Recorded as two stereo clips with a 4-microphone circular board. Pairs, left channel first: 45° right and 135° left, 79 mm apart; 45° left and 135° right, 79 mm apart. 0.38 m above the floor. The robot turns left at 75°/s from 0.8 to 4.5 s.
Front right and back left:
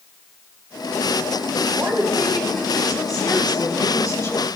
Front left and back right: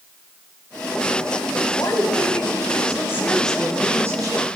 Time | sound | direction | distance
1.8 | a woman speaking | 90° left | 2.5 m